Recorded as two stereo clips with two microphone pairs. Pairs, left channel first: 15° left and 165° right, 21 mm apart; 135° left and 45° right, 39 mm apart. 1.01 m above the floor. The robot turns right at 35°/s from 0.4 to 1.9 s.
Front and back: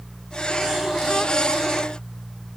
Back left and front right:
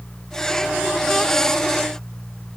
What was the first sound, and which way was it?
Only background noise.